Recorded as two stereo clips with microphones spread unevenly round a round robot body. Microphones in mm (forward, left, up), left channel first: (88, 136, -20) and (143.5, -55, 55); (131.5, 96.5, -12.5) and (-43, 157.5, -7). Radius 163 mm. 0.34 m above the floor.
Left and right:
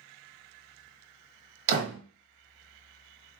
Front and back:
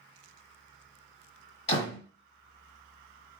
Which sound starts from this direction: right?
A door slam, at 1.7 s.